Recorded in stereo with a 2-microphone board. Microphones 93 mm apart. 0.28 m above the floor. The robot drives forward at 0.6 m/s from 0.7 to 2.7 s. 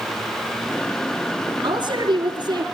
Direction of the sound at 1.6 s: 55° right (ahead or behind).